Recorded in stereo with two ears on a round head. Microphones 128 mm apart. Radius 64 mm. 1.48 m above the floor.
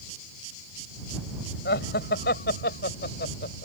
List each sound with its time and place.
1.6 s laughter: 80° left; by 3.6 s 75° left (ahead or behind)